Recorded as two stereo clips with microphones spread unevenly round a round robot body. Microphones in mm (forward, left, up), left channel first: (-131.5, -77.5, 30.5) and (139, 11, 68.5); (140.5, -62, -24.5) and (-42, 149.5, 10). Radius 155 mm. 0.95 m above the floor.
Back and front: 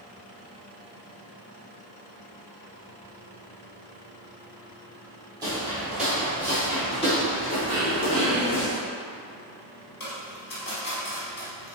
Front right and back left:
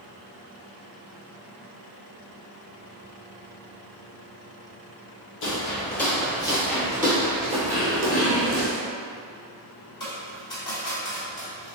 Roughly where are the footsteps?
Ahead right.